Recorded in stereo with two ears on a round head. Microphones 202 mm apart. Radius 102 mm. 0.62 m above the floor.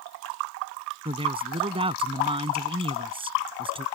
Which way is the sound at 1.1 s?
25° right (ahead or behind).